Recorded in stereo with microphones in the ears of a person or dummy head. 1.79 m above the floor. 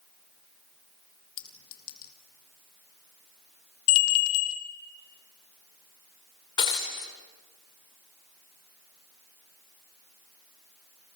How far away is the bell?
About 1.3 m.